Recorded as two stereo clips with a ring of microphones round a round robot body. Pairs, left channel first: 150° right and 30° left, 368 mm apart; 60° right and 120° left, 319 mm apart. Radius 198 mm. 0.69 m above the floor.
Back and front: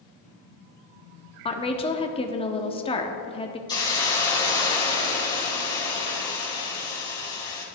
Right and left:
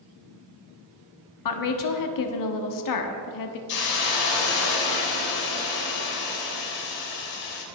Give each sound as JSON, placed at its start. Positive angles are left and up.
{"t": 1.4, "sound": "a woman speaking", "azimuth_deg": -75, "distance_m": 1.2}
{"t": 3.7, "sound": "a hiss", "azimuth_deg": -70, "distance_m": 3.0}